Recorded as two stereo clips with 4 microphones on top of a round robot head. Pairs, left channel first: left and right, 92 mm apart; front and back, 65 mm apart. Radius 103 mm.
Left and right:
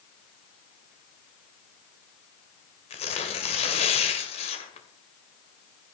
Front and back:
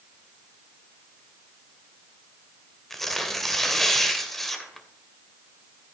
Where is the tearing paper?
85° left, 2 m.